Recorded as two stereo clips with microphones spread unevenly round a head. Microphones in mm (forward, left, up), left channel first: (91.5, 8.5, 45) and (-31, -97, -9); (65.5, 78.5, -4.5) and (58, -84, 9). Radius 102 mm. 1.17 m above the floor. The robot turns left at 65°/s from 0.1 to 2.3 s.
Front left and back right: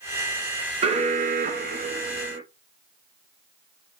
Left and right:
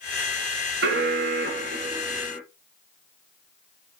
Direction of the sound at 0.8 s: 95° right.